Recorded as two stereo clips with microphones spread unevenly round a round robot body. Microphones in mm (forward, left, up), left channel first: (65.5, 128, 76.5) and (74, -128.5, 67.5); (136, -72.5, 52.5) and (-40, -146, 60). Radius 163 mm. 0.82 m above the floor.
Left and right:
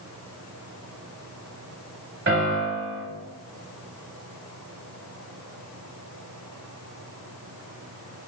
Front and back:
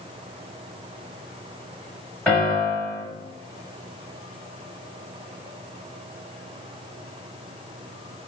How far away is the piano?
About 1.6 m.